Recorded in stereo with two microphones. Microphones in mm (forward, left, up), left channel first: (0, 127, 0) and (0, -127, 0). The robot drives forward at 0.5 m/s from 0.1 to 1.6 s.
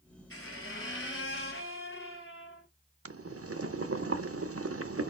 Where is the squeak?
55° left (ahead or behind), 3 m; by 2.7 s 50° left (ahead or behind), 3.5 m.